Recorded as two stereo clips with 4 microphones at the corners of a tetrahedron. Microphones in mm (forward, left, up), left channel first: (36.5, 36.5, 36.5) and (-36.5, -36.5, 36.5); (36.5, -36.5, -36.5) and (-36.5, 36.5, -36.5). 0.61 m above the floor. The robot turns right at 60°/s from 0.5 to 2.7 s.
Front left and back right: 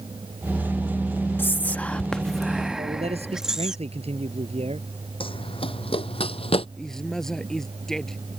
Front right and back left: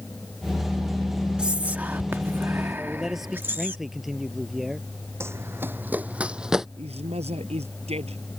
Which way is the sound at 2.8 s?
140° right.